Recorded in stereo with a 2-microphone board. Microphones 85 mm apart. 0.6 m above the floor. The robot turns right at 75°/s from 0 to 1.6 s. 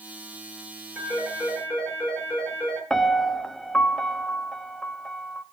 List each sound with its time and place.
0.9 s a phone ringing: 30° right, 8.5 m; by 2.8 s 15° left, 8.5 m
2.9 s a piano: 5° left (ahead or behind), 0.7 m